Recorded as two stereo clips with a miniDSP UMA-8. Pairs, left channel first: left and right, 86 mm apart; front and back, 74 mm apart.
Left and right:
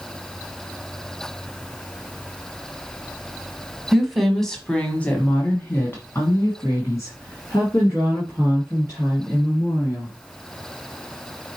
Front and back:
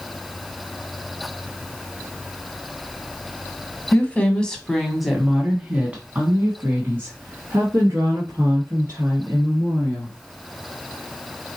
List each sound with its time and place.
3.9 s a woman speaking: 10° right, 1.1 m; by 10.2 s 135° left, 3 m